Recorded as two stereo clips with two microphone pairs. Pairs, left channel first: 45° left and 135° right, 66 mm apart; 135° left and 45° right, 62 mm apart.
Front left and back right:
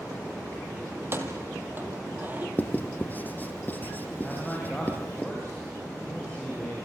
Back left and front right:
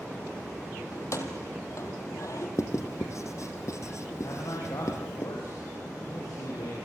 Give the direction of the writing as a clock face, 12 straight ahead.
8 o'clock.